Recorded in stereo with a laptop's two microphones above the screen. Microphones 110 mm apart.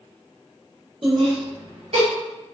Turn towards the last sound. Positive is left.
turn(degrees=-65)  # may be behind; listen again after turning